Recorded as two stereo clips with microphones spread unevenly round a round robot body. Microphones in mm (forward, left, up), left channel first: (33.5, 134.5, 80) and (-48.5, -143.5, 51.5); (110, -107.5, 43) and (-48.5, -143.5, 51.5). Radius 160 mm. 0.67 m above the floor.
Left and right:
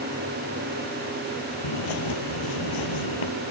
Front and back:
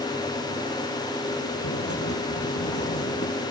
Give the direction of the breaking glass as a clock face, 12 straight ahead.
I don't hear breaking glass.